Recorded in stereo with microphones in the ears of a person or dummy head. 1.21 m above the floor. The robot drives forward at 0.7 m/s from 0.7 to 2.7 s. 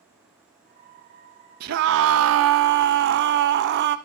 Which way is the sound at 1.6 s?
55° right (ahead or behind).